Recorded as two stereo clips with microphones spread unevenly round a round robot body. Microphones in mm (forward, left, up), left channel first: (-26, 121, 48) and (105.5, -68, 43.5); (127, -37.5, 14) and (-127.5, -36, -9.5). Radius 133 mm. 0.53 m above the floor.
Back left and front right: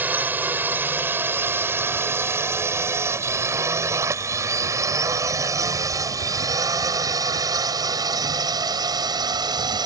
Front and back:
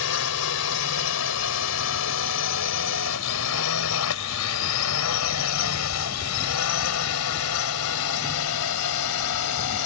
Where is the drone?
25° left; by 9.9 s 15° left.